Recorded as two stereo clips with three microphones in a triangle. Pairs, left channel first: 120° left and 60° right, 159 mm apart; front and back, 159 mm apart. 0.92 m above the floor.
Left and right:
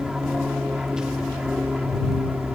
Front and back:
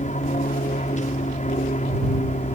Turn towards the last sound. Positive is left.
turn(degrees=25)